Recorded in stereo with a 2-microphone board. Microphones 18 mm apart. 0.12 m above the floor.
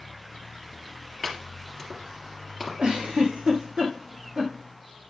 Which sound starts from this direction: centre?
Chopping, at 1.2 s.